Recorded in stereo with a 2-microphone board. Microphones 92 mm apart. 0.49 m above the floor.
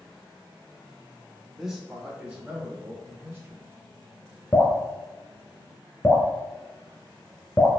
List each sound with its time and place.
1.6 s a man speaking: centre (ahead or behind), 1.6 m; by 3.7 s 25° right (ahead or behind), 2.5 m
4.5 s dripping: 35° left (ahead or behind), 1.0 m